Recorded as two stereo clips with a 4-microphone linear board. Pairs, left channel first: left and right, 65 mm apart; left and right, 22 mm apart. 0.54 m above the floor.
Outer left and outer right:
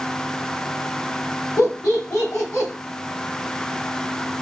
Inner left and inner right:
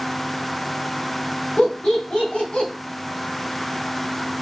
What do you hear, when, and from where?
1.6 s laughter: 65° left (ahead or behind), 3 m; by 2.7 s 60° left (ahead or behind), 3 m